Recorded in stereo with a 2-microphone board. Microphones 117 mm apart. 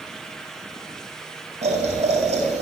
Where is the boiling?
75° right (ahead or behind), 8 m.